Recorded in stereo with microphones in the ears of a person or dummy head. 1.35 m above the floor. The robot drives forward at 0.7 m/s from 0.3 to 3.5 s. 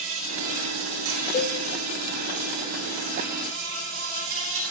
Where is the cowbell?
20° left (ahead or behind), 1.0 m; by 1.6 s 15° left (ahead or behind), 1.1 m.